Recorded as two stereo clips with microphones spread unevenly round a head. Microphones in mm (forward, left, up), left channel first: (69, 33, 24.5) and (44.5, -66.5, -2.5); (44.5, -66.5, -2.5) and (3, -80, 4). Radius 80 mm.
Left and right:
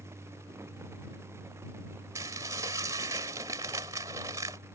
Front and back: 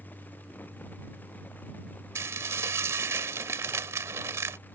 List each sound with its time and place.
2.1 s dishes clattering: straight behind